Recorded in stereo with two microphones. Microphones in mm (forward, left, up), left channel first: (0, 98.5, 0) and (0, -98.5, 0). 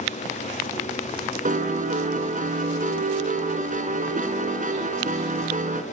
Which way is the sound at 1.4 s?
40° right (ahead or behind).